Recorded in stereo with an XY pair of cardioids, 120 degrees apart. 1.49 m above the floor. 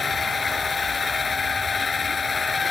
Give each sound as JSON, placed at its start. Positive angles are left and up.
{"t": 0.0, "sound": "a machine running", "azimuth_deg": 35}